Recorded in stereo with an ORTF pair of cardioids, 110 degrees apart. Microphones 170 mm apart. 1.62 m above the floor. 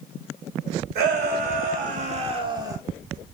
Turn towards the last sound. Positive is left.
turn(degrees=-15)